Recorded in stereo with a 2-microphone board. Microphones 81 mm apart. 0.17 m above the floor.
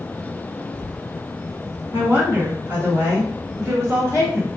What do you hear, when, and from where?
1.9 s a woman speaking: 25° right (ahead or behind), 1.6 m; by 4.6 s 40° right (ahead or behind), 2.5 m